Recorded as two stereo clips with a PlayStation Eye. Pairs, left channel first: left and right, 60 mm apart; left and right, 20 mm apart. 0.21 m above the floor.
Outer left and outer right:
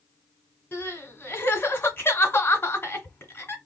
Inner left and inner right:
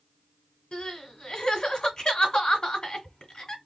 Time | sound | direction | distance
0.7 | crying | 35° left (ahead or behind) | 1.6 m